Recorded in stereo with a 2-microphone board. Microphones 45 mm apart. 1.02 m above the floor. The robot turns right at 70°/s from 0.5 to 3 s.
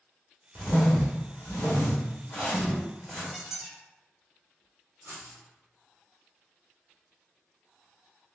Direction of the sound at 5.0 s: 55° right (ahead or behind).